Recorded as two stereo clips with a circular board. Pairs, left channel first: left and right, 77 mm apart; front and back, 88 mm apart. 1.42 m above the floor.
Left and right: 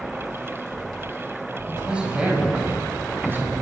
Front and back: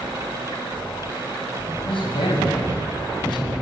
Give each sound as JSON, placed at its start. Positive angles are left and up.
{"t": 1.7, "sound": "a man speaking", "azimuth_deg": -10, "distance_m": 8.0}